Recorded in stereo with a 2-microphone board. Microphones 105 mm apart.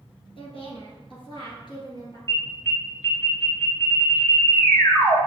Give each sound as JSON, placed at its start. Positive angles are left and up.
{"t": 0.4, "sound": "a woman speaking", "side_deg": 60, "distance_m": 2.0}
{"t": 2.3, "sound": "an alarm", "side_deg": 30, "distance_m": 1.4}